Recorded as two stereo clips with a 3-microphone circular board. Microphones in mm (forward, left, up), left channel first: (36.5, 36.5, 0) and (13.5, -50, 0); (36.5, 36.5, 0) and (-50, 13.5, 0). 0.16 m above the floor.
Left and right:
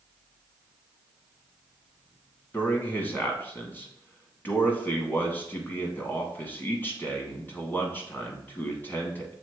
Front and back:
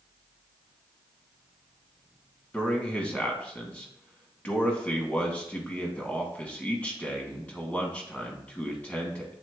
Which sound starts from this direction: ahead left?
A man speaking, at 2.5 s.